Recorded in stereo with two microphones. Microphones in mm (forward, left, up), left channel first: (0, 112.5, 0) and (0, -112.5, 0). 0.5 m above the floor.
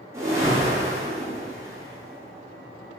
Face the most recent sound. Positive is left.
turn(degrees=-15)  # may be behind; listen again after turning